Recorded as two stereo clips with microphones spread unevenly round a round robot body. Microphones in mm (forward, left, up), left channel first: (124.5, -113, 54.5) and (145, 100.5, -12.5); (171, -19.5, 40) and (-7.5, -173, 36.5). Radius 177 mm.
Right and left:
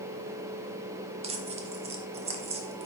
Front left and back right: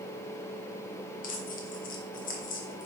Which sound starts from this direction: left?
Tearing paper, at 1.2 s.